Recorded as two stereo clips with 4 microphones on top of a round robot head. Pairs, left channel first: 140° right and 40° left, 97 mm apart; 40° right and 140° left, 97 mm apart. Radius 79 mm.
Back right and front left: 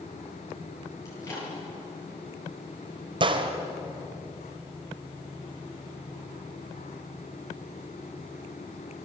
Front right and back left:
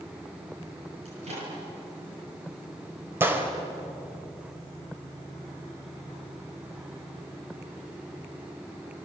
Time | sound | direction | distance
1.1 | a microwave | 160° left | 9.5 m
3.2 | a gunshot | 75° left | 2.5 m